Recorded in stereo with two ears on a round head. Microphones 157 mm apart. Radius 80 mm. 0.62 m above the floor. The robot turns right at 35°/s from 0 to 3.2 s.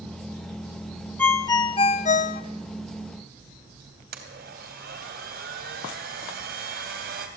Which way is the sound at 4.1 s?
60° right (ahead or behind).